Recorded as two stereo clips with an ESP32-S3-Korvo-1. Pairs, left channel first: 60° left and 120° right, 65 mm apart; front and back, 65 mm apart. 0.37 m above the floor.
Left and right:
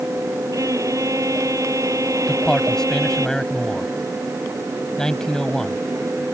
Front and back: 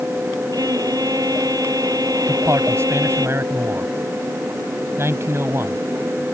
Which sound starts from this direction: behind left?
A man speaking, at 2.3 s.